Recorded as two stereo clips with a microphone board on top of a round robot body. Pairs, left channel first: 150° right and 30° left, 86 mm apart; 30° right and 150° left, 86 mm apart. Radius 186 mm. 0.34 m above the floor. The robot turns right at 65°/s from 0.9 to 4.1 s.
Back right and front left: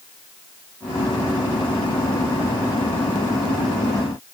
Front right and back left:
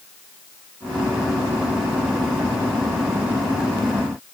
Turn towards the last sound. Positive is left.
No sound to turn to.